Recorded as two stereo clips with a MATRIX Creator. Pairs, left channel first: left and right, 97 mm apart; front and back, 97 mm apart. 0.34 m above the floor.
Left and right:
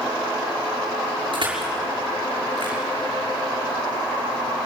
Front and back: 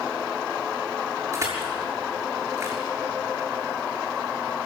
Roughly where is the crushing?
Behind right.